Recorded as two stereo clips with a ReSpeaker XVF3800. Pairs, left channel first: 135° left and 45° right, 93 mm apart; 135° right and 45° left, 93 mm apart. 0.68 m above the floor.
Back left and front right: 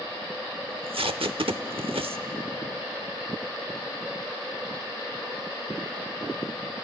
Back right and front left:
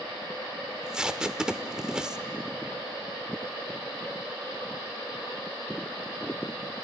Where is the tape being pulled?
35° right, 0.8 m.